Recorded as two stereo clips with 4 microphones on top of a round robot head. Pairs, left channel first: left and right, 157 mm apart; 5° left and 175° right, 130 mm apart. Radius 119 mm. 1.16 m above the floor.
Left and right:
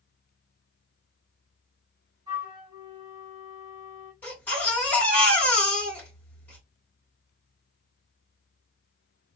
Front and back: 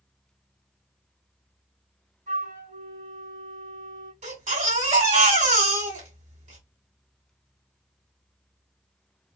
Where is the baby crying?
170° left, 2 m.